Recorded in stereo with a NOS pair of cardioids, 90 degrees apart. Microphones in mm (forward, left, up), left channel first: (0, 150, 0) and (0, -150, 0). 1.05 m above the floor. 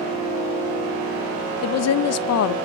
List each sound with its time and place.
1.6 s a woman speaking: 60° left, 0.7 m